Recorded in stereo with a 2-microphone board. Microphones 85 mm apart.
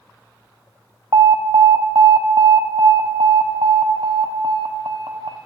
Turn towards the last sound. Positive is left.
turn(degrees=-75)  # may be behind; listen again after turning